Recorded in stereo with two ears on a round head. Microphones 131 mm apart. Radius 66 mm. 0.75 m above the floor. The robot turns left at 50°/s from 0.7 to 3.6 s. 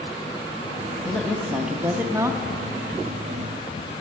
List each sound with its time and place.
1.1 s a woman speaking: 10° left (ahead or behind), 0.8 m; by 2.4 s 20° right (ahead or behind), 0.8 m